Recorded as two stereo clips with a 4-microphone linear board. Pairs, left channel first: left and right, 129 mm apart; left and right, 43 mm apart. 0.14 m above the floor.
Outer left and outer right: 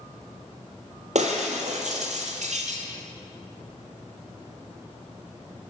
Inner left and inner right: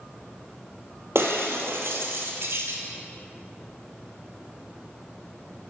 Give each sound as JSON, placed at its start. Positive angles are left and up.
{"t": 1.1, "sound": "breaking glass", "side_deg": -70, "distance_m": 1.1}